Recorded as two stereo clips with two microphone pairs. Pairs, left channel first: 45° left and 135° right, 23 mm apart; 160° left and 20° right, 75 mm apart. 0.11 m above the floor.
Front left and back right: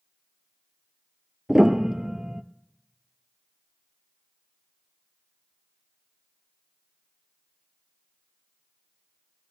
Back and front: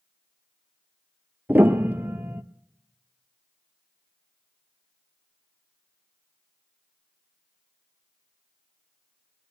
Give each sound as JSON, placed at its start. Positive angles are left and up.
{"t": 1.5, "sound": "a piano", "azimuth_deg": -80, "distance_m": 0.6}